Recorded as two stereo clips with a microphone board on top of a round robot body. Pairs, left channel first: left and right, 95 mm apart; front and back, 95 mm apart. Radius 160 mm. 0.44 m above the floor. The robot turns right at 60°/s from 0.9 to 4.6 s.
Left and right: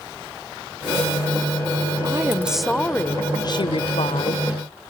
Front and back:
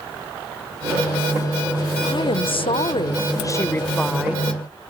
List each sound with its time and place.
2.0 s a woman speaking: 35° right; by 4.5 s 110° left